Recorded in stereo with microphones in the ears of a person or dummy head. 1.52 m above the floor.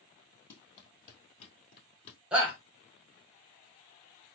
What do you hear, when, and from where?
0.5 s running footsteps: 25° left (ahead or behind), 1.8 m; by 2.2 s 35° left (ahead or behind), 1.8 m
2.3 s a shout: 5° right (ahead or behind), 0.9 m